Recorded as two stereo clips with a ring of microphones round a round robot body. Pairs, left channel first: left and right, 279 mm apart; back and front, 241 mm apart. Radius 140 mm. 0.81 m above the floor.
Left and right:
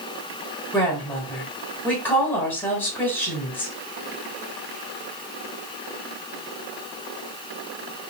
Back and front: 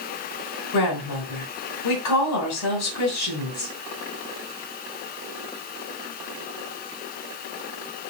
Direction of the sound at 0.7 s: 175° left.